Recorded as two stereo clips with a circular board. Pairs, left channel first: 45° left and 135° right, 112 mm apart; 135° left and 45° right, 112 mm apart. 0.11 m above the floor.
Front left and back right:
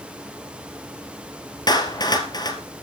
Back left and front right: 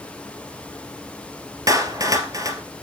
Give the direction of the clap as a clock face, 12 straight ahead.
12 o'clock.